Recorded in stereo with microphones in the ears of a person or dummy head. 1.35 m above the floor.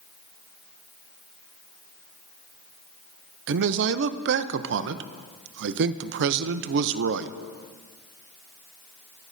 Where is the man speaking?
65° right (ahead or behind), 0.7 m.